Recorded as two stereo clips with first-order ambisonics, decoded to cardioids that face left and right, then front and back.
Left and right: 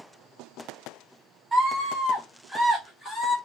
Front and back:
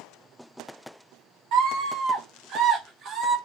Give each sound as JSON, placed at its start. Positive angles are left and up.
{"t": 1.5, "sound": "a scream", "azimuth_deg": 180, "distance_m": 2.0}